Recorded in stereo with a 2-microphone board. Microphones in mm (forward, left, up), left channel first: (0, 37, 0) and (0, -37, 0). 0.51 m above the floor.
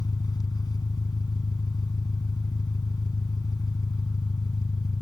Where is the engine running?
65° left (ahead or behind).